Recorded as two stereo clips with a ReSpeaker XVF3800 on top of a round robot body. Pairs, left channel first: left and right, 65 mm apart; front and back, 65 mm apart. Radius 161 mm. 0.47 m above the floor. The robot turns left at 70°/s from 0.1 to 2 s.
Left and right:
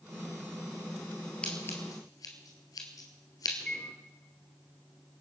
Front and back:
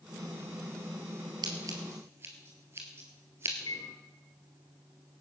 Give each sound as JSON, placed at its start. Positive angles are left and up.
{"t": 1.4, "sound": "scissors", "azimuth_deg": 165, "distance_m": 1.9}
{"t": 3.6, "sound": "a microwave", "azimuth_deg": 15, "distance_m": 1.6}